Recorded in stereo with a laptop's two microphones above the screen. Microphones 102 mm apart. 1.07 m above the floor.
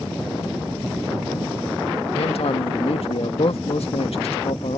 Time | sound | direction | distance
2.1 | a man speaking | 70° left (ahead or behind) | ?